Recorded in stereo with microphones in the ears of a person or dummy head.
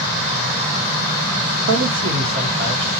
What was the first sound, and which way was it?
A man speaking, 75° right (ahead or behind).